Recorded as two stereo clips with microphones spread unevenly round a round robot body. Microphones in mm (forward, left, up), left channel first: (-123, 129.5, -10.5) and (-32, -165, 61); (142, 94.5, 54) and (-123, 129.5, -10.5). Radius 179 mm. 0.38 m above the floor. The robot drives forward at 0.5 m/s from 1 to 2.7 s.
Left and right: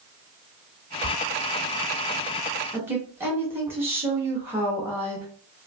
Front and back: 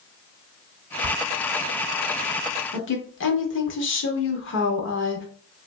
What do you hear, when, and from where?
1.0 s a whoosh: straight ahead, 2 m
2.7 s a woman speaking: 25° left, 1.0 m